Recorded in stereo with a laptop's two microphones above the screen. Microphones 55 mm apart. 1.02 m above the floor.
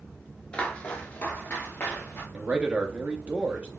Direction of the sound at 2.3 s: 25° right (ahead or behind).